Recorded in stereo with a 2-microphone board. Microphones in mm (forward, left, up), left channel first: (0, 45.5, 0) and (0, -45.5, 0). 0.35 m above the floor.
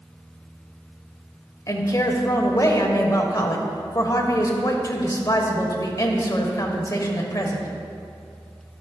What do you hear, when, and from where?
1.7 s a woman speaking: 40° left (ahead or behind), 1.0 m